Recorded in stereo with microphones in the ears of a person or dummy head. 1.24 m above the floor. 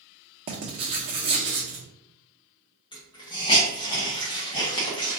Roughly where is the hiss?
Left.